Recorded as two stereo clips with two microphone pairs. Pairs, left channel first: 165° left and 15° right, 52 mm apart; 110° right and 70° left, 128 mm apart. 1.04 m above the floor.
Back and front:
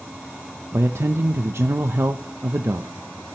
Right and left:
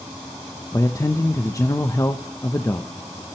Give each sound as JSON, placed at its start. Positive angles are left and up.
{"t": 0.7, "sound": "a man speaking", "azimuth_deg": -45, "distance_m": 0.8}